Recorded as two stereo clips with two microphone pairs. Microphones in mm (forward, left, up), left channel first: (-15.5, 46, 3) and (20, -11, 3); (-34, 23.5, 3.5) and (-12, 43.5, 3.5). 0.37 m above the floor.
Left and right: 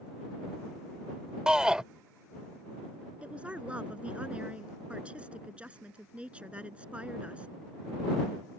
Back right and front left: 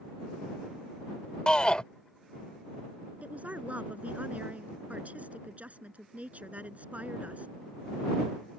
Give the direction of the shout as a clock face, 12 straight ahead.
4 o'clock.